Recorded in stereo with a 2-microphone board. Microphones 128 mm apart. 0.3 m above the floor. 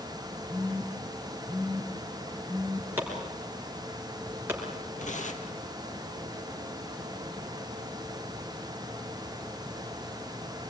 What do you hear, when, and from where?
0.5 s a phone buzzing: 20° right (ahead or behind), 3 m
3.0 s chopping: 15° right (ahead or behind), 5.5 m
5.0 s tearing paper: 70° left (ahead or behind), 2.5 m